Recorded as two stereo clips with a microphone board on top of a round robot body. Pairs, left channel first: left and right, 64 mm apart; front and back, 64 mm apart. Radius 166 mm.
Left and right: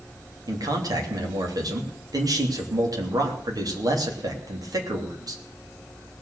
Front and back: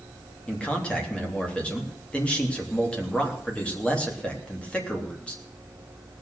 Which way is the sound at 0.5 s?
70° right.